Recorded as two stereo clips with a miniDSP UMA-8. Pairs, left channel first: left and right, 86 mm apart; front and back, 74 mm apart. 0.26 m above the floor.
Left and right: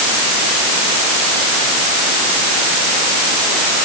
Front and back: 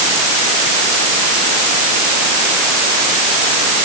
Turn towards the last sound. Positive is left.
No sound to turn to.